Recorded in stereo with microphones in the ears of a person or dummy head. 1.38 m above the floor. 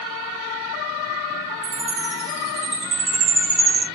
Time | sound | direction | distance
1.6 | a chime | 40° right (ahead or behind) | 2 m